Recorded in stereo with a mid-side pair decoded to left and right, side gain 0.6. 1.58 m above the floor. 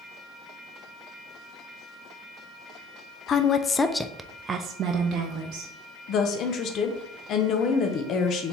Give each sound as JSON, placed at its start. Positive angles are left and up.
{"t": 3.3, "sound": "a woman speaking", "azimuth_deg": 45, "distance_m": 0.7}
{"t": 6.1, "sound": "a woman speaking", "azimuth_deg": 55, "distance_m": 0.9}